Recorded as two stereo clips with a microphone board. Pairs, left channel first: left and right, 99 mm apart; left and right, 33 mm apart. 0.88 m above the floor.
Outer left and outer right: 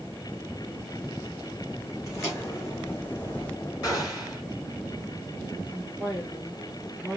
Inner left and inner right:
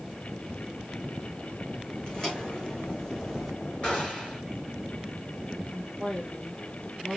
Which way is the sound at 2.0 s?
30° left (ahead or behind).